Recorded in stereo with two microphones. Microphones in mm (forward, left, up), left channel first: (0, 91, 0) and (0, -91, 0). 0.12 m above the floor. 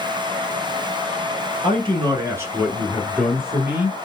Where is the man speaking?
35° right (ahead or behind), 1.2 m; by 4.0 s 30° left (ahead or behind), 1.1 m.